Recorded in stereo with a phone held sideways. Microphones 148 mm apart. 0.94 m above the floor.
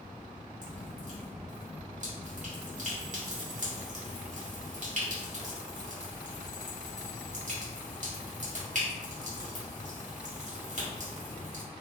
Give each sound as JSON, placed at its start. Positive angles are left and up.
{"t": 0.6, "sound": "dripping", "side_deg": -55, "distance_m": 1.5}